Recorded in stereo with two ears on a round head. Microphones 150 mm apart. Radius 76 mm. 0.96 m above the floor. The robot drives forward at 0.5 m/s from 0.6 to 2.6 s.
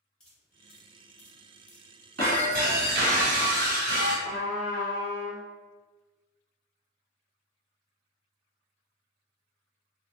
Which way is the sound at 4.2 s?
25° right (ahead or behind).